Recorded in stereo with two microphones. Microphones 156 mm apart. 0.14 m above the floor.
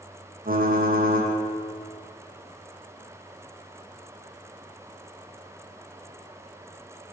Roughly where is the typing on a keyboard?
Right.